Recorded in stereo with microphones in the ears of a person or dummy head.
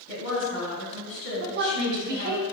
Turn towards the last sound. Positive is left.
turn(degrees=-55)  # may be behind; listen again after turning